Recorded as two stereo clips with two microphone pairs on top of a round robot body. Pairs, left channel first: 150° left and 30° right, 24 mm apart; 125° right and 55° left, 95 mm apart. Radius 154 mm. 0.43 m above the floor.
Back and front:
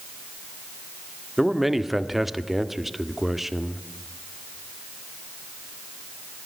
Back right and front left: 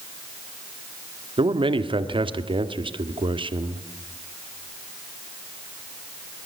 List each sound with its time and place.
1.4 s a man speaking: 45° left, 1.9 m